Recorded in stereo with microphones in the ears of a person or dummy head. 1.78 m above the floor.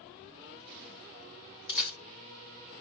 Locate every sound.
1.7 s a camera shutter: 5° right (ahead or behind), 1.0 m